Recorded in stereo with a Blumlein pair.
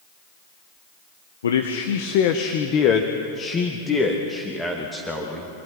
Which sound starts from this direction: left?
A man speaking, at 1.4 s.